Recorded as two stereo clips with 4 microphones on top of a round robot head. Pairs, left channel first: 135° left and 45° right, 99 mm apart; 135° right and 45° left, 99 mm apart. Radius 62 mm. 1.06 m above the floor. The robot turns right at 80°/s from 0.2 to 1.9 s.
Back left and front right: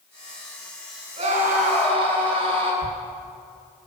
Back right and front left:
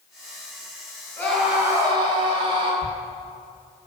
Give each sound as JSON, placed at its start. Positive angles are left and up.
{"t": 1.2, "sound": "a scream", "azimuth_deg": -65, "distance_m": 9.0}
{"t": 2.8, "sound": "a thud", "azimuth_deg": 175, "distance_m": 2.5}